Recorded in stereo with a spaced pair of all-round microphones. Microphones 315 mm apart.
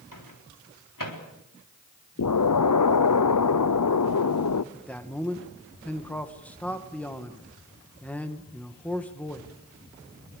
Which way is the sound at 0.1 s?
85° left.